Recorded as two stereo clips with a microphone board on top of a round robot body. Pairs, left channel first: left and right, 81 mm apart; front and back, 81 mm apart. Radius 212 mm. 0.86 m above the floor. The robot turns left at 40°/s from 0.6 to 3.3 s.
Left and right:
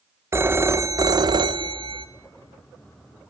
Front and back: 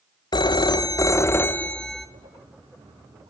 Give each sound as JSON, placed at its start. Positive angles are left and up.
{"t": 0.3, "sound": "a phone ringing", "azimuth_deg": -30, "distance_m": 0.8}